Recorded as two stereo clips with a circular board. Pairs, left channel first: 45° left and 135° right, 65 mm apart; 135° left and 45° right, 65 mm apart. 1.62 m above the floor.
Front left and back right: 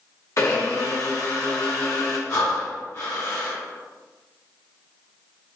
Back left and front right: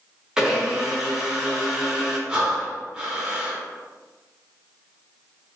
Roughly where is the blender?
Ahead left.